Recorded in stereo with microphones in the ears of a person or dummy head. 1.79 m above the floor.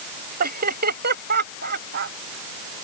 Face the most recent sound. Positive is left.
turn(degrees=-50)  # may be behind; listen again after turning